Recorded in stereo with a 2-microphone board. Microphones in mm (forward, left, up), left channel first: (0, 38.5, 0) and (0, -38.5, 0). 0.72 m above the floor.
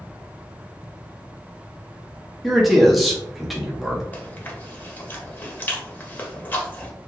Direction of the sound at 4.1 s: 25° left (ahead or behind).